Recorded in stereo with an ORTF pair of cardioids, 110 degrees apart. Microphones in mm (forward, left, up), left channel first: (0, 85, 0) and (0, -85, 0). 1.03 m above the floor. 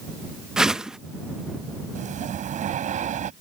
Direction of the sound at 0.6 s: 5° right.